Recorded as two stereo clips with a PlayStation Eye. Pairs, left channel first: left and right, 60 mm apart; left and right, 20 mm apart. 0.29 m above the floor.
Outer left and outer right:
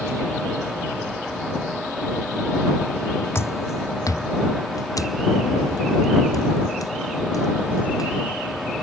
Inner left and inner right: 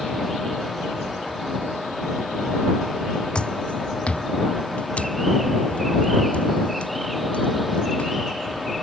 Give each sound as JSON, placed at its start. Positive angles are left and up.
{"t": 3.4, "sound": "footsteps", "side_deg": 50}